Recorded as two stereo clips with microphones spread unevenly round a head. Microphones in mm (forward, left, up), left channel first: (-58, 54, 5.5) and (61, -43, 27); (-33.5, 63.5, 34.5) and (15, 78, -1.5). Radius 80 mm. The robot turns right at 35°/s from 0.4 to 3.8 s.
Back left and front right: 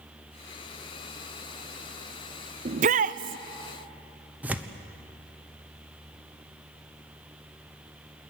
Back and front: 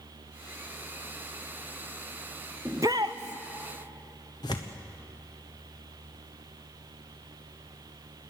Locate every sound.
2.6 s a shout: 75° right, 0.5 m; by 3.4 s 50° right, 0.5 m
4.4 s tearing paper: 120° right, 1.1 m